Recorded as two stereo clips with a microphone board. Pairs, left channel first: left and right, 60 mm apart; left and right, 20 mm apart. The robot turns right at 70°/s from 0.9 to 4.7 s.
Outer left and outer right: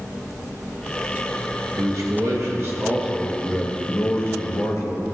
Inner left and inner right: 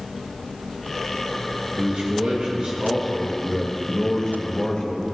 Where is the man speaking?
115° right, 2.5 m; by 5.0 s 95° left, 2.5 m.